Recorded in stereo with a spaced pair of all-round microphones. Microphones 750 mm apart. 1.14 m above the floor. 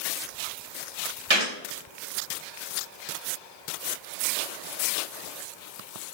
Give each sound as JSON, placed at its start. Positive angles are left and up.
{"t": 1.3, "sound": "a gunshot", "side_deg": -40, "distance_m": 1.4}